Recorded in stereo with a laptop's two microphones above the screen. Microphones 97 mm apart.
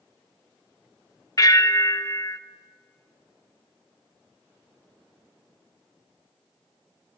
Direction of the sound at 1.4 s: 35° left (ahead or behind).